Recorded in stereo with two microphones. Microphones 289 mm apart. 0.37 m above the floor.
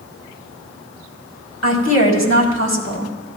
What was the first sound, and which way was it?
A woman speaking, 60° left (ahead or behind).